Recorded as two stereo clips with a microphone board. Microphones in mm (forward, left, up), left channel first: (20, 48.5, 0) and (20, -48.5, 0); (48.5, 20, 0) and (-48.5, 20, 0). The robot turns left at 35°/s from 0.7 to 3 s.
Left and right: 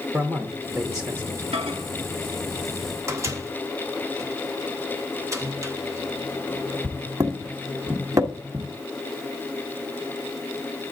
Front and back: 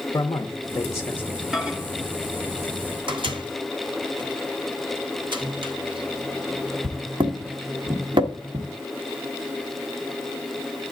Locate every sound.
0.1 s a man speaking: 40° right, 0.8 m; by 1.5 s 65° right, 0.8 m
1.5 s a microwave: 95° right, 1.0 m; by 8.7 s 150° right, 1.0 m